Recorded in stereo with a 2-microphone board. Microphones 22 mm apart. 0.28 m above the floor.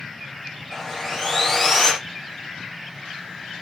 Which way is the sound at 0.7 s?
5° left (ahead or behind).